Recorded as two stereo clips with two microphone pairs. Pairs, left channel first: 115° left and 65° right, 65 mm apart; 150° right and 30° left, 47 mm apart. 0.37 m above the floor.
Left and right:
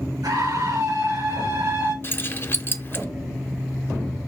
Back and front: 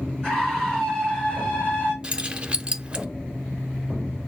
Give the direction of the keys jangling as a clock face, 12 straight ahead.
9 o'clock.